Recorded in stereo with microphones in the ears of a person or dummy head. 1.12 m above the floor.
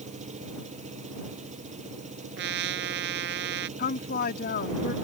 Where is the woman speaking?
55° left (ahead or behind).